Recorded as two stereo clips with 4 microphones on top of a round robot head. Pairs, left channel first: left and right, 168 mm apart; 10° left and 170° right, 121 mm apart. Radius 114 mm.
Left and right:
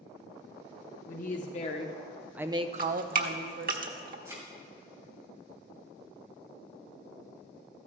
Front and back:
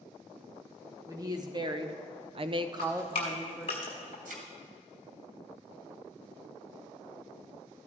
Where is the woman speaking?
130° left, 1.5 m; by 3.8 s 90° right, 1.4 m.